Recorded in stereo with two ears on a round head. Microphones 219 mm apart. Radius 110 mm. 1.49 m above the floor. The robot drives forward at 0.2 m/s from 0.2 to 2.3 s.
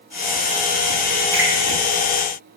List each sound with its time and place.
1.3 s a finger snap: 45° right (ahead or behind), 1.2 m